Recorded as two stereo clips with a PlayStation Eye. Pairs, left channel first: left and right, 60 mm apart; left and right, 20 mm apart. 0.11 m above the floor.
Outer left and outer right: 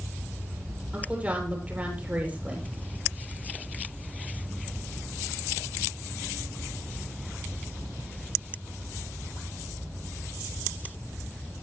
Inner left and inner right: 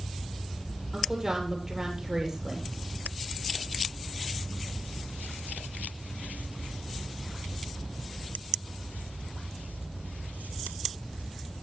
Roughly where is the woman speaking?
Right.